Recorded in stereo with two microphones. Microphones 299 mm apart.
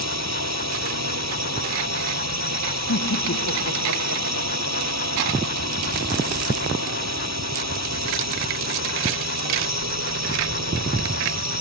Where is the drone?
60° right (ahead or behind).